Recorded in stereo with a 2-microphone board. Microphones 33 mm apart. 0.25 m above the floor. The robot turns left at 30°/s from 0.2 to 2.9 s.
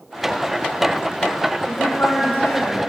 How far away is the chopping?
I don't hear chopping.